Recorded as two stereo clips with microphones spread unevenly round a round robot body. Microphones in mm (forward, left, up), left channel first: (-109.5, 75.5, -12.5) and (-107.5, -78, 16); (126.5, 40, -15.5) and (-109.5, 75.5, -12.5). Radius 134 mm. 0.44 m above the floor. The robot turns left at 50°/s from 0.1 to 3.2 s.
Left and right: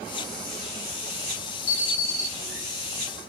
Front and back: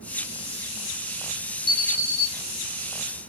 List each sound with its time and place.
1.7 s an alarm: 10° left, 2.5 m; by 2.3 s 20° right, 2.5 m